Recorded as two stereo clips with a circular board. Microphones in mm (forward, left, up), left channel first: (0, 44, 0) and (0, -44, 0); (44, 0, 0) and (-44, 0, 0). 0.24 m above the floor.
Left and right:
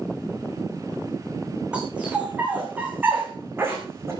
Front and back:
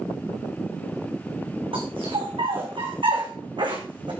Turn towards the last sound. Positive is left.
turn(degrees=-150)